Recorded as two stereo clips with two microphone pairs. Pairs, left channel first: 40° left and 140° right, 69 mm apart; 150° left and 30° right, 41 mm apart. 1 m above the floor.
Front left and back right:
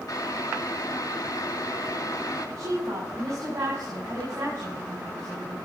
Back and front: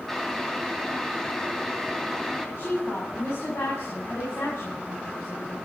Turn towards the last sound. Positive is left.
turn(degrees=175)